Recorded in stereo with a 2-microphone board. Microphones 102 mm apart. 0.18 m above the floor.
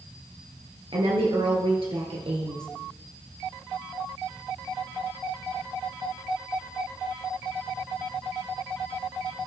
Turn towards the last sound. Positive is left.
turn(degrees=-65)  # may be behind; listen again after turning